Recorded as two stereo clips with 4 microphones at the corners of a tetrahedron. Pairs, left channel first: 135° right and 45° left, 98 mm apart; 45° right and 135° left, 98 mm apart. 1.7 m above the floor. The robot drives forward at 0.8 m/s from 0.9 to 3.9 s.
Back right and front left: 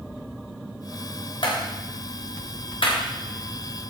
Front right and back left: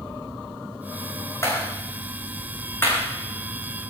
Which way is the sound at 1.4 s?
105° right.